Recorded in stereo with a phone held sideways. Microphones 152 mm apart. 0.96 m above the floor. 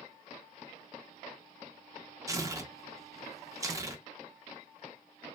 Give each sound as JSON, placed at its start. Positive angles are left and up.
{"t": 2.3, "sound": "tearing paper", "side_deg": -20, "distance_m": 0.5}